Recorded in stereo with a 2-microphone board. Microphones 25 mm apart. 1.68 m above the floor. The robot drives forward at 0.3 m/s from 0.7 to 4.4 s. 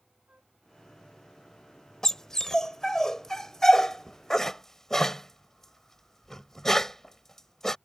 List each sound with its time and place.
0.3 s a flute: 65° right (ahead or behind)
2.0 s a dog barking: 20° left (ahead or behind); by 7.8 s 15° left (ahead or behind)